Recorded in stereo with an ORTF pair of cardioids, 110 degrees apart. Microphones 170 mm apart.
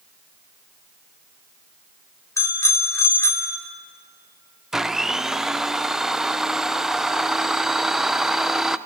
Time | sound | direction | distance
2.4 | a bicycle bell | 15° left | 3 m
4.7 | a blender | 5° right | 0.8 m